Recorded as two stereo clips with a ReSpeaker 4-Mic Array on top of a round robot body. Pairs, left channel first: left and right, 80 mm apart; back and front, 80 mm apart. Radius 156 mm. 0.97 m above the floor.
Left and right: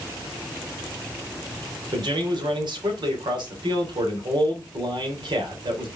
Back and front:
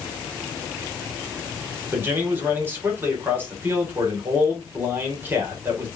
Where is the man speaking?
65° right, 3.5 m.